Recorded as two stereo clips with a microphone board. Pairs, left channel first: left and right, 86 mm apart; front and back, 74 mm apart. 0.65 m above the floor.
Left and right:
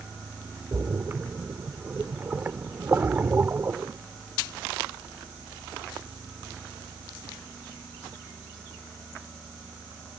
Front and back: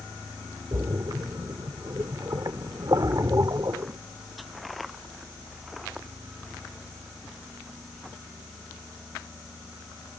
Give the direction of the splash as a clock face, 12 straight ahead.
5 o'clock.